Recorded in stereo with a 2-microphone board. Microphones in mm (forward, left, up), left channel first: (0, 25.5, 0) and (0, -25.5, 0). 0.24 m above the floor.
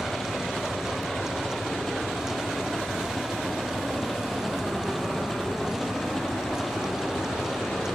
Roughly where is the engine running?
Centre.